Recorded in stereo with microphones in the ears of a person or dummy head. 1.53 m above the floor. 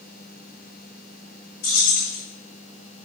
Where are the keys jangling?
45° left (ahead or behind), 1.3 m.